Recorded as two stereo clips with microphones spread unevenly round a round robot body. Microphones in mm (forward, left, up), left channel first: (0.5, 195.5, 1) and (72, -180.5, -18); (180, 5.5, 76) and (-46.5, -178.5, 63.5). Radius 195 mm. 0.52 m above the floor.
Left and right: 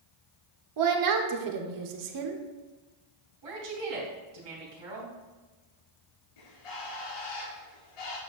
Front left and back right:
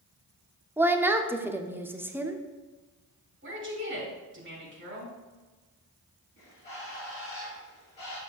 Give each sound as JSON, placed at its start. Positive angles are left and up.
{"t": 0.8, "sound": "a woman speaking", "azimuth_deg": -60, "distance_m": 1.0}
{"t": 3.4, "sound": "a woman speaking", "azimuth_deg": -95, "distance_m": 3.5}
{"t": 6.4, "sound": "a bird", "azimuth_deg": 115, "distance_m": 3.0}